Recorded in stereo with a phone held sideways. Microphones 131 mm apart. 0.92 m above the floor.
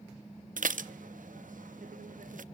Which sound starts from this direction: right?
Dishes clattering, at 0.6 s.